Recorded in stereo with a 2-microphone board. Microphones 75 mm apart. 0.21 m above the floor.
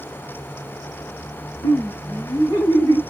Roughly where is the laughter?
Left.